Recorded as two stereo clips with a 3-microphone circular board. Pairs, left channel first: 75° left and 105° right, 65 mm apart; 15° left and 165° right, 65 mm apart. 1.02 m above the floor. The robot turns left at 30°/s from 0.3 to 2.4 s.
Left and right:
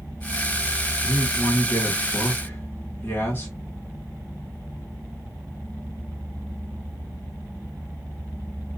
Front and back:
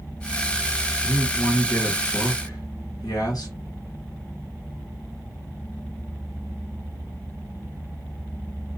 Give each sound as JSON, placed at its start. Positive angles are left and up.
{"t": 1.0, "sound": "a man speaking", "azimuth_deg": 65, "distance_m": 1.6}